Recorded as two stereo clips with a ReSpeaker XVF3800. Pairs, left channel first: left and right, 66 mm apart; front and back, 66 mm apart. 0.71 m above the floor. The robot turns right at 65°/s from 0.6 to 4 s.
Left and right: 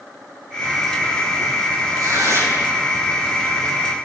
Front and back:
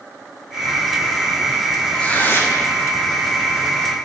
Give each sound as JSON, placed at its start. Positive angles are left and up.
{"t": 1.9, "sound": "tearing paper", "azimuth_deg": -75, "distance_m": 6.0}